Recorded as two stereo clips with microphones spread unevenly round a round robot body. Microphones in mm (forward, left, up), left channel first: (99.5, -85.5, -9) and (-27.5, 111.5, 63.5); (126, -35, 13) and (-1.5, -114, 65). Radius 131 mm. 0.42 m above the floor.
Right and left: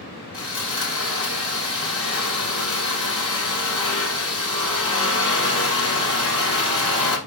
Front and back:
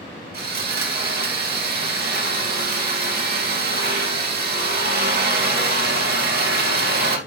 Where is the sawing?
130° right, 2.5 m.